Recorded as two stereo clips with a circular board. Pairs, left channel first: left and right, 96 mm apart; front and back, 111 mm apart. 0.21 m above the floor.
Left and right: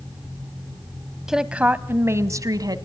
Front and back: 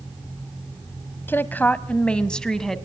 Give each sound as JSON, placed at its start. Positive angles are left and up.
{"t": 1.3, "sound": "a woman speaking", "azimuth_deg": -15, "distance_m": 1.2}